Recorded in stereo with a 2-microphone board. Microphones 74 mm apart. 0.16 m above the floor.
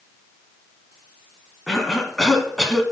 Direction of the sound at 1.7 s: 5° left (ahead or behind).